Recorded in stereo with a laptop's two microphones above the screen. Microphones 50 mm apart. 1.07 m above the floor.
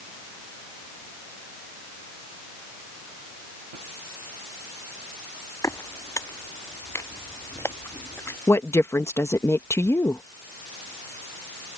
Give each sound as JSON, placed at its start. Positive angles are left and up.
{"t": 5.6, "sound": "footsteps", "side_deg": 70}
{"t": 8.5, "sound": "a woman speaking", "side_deg": 60}